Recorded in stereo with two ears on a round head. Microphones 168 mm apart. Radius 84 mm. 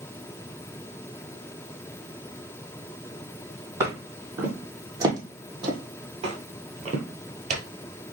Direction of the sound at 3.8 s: 15° right (ahead or behind).